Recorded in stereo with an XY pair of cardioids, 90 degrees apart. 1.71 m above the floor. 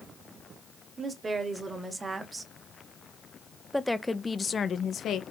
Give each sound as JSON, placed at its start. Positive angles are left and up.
{"t": 1.0, "sound": "a woman speaking", "azimuth_deg": -40, "distance_m": 2.0}